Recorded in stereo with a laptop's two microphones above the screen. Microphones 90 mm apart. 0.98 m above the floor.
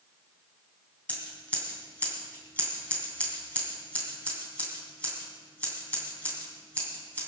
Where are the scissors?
15° left (ahead or behind), 3 m.